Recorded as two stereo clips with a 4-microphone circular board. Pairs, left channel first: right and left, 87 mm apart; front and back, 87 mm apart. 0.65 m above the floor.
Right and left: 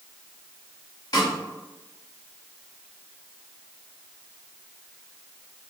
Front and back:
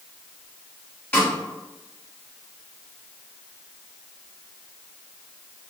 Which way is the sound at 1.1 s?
70° right.